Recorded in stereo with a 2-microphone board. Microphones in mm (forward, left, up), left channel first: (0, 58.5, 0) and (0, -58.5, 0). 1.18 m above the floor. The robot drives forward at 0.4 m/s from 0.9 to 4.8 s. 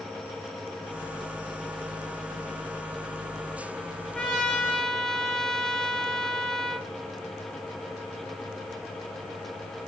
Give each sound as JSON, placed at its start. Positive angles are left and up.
{"t": 4.2, "sound": "a trumpet", "side_deg": 5, "distance_m": 0.8}